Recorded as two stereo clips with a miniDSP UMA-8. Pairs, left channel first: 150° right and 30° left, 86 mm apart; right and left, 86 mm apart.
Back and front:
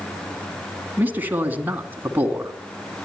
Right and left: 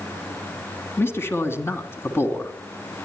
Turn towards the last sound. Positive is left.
turn(degrees=-35)